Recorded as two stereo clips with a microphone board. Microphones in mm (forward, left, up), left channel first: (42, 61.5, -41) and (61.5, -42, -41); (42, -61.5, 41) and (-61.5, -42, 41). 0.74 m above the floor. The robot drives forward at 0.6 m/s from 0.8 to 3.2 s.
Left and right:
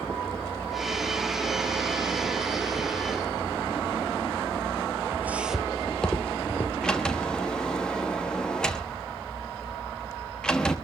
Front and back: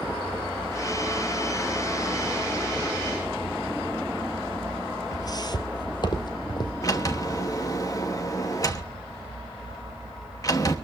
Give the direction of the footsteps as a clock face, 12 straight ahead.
1 o'clock.